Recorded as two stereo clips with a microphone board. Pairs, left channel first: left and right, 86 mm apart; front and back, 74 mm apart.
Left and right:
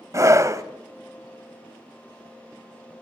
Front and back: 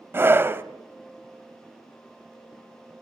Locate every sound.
0.1 s a scream: 130° right, 1.3 m